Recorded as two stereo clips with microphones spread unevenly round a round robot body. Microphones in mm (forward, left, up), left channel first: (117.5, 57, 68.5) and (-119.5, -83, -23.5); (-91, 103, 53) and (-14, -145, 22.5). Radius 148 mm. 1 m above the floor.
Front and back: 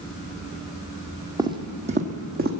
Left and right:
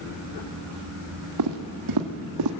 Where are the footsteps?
60° right, 1.7 m; by 2.5 s 85° right, 2 m.